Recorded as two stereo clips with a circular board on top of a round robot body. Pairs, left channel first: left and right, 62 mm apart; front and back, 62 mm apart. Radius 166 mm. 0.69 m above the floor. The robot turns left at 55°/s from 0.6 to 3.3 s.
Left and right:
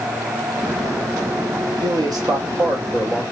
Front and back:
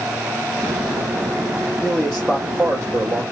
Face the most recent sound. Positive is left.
turn(degrees=-160)